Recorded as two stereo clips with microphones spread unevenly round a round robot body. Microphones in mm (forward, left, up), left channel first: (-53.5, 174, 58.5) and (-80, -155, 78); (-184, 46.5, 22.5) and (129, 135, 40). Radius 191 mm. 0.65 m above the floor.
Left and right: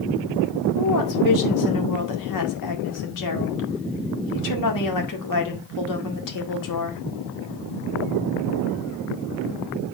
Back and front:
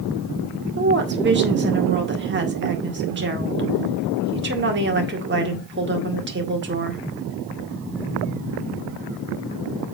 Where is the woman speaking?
70° left, 1.9 m.